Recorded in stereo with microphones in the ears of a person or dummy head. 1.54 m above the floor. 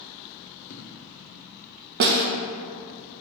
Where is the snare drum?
50° right (ahead or behind), 0.7 m.